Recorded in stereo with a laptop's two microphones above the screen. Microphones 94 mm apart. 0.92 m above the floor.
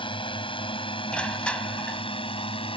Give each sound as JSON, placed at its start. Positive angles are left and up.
{"t": 0.0, "sound": "a drone", "side_deg": 65}
{"t": 1.1, "sound": "crushing", "side_deg": 10}